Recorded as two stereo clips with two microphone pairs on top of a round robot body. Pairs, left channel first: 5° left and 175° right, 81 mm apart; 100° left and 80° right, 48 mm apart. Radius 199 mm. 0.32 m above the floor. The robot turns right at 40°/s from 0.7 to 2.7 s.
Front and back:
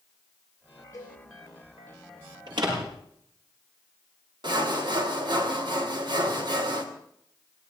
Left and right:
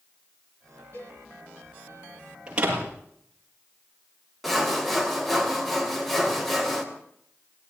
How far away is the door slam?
About 7.5 m.